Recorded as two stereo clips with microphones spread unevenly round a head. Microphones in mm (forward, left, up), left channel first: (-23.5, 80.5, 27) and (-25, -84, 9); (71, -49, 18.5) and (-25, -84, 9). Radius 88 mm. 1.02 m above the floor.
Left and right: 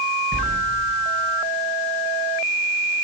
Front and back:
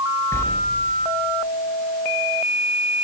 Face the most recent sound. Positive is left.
turn(degrees=-45)